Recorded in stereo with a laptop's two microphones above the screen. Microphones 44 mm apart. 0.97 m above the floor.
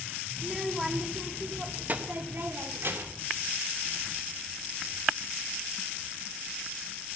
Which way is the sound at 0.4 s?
Centre (ahead or behind).